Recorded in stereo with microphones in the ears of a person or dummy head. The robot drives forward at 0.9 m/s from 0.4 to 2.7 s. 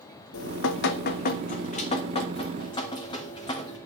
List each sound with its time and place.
0.3 s dripping: 75° left (ahead or behind), 1.1 m; by 3.8 s 25° left (ahead or behind), 2.5 m